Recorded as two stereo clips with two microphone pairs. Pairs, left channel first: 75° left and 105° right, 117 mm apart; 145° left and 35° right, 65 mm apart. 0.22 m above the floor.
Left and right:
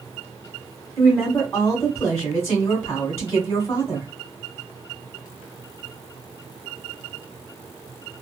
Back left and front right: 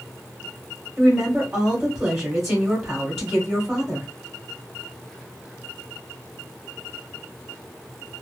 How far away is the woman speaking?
About 1.5 m.